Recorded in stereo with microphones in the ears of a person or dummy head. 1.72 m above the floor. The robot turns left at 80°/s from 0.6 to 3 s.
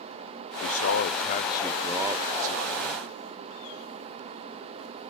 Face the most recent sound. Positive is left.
turn(degrees=-95)